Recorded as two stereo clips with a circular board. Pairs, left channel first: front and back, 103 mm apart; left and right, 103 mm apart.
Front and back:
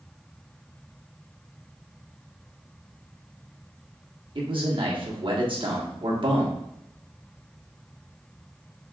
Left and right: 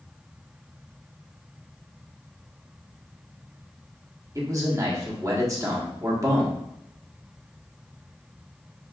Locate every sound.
4.3 s a man speaking: 145° right, 1.3 m